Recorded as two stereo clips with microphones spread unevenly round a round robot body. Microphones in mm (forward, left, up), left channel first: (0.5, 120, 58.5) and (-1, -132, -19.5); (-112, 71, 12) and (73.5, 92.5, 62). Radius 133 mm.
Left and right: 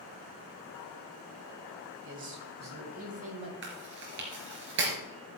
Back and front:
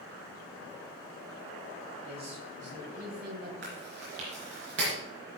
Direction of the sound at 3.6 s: 45° right.